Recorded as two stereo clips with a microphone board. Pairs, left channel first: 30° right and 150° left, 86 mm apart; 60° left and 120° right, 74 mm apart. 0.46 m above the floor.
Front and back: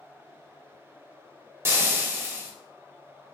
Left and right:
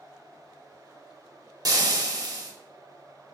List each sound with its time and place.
1.6 s frying: 150° right, 0.8 m